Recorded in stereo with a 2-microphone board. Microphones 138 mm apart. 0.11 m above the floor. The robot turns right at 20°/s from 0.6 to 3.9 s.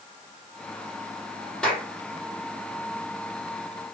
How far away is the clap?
About 3.5 m.